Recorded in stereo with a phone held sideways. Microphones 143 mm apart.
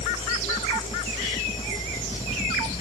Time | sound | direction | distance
0.0 | a fan | 45° left (ahead or behind) | ?